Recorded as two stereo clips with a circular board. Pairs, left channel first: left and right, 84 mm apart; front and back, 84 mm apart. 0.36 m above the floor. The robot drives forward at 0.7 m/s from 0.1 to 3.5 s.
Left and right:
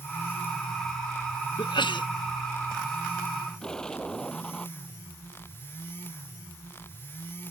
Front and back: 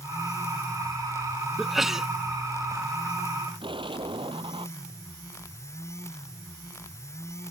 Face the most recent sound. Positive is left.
turn(degrees=170)